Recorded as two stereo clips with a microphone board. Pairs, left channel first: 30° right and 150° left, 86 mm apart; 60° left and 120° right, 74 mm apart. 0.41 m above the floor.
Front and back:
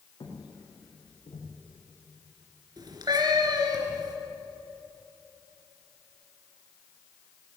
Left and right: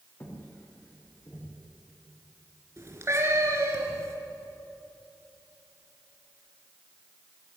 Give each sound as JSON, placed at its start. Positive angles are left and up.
{"t": 0.2, "sound": "footsteps", "azimuth_deg": 0, "distance_m": 9.0}
{"t": 2.8, "sound": "a cat meowing", "azimuth_deg": -170, "distance_m": 3.5}